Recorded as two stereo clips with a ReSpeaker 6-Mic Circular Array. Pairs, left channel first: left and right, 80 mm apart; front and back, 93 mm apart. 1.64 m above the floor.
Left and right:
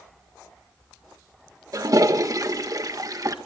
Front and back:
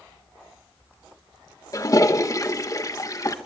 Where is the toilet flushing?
50° right, 1.5 m.